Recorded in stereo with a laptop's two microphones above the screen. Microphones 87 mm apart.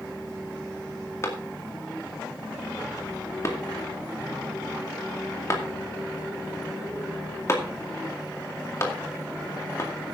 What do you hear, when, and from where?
1.2 s a clap: 35° left (ahead or behind), 2 m